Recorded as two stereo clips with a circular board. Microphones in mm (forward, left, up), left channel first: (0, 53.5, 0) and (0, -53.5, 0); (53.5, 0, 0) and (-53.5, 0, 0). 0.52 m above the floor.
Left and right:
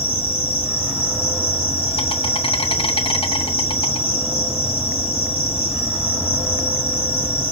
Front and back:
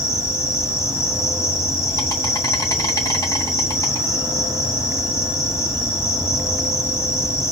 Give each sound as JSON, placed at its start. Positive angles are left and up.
{"t": 0.0, "sound": "an insect", "azimuth_deg": 65, "distance_m": 2.5}